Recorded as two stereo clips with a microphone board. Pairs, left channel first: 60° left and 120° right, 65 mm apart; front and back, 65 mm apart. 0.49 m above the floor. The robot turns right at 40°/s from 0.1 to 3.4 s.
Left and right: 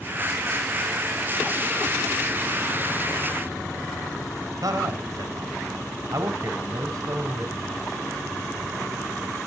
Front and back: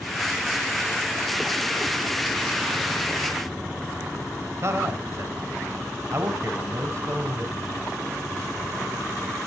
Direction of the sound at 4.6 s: 135° right.